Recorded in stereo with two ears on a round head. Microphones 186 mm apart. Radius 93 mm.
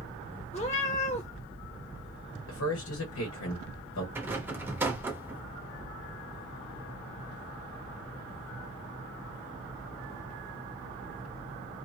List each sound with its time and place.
0.5 s a cat meowing: 30° left (ahead or behind), 1.2 m
2.5 s a man speaking: 70° left (ahead or behind), 1.2 m
4.2 s a rattle: 10° right (ahead or behind), 0.7 m